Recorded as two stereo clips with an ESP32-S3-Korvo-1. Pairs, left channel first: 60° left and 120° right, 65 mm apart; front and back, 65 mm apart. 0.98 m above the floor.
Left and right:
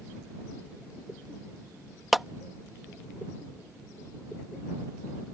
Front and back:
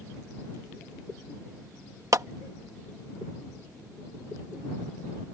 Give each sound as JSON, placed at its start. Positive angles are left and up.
{"t": 2.1, "sound": "a clap", "azimuth_deg": 150}